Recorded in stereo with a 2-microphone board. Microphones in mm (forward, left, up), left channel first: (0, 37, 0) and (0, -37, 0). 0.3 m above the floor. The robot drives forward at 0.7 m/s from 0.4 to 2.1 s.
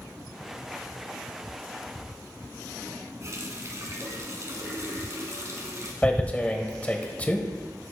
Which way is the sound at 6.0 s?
20° left (ahead or behind).